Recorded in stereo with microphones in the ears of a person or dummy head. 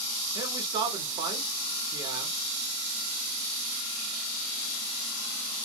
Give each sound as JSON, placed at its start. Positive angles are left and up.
{"t": 0.3, "sound": "a man speaking", "side_deg": -25, "distance_m": 0.9}